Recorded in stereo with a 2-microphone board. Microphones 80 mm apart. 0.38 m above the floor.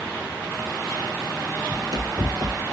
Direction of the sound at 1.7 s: 55° right (ahead or behind).